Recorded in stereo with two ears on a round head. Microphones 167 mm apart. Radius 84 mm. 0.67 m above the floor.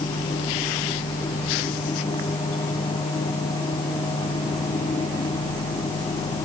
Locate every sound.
Only background noise.